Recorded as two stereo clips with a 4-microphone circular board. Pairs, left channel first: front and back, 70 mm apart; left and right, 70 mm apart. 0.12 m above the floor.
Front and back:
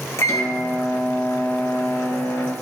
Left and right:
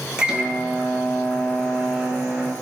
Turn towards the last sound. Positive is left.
turn(degrees=-15)